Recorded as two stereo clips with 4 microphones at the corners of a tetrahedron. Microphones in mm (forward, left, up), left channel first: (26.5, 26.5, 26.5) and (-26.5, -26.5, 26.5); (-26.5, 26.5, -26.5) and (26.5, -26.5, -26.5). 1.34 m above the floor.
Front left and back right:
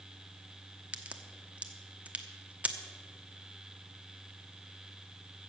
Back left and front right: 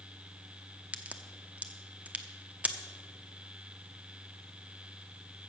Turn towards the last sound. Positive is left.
turn(degrees=-90)